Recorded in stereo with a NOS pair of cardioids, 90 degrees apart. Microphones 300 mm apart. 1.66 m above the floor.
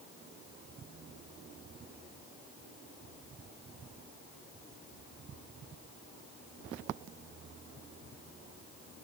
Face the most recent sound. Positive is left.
No sound to turn to.